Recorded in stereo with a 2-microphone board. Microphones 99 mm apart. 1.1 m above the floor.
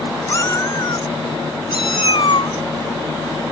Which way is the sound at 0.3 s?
35° left (ahead or behind).